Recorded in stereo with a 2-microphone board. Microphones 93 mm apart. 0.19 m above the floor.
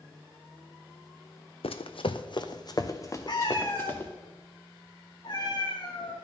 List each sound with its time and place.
1.6 s running footsteps: 80° left, 0.7 m; by 4.1 s 20° left (ahead or behind), 1.4 m
3.3 s a cat meowing: 50° left (ahead or behind), 2 m